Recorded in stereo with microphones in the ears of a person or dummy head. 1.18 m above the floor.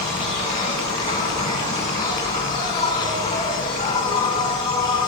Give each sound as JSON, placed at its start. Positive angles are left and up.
{"t": 0.0, "sound": "an insect", "side_deg": 25, "distance_m": 9.5}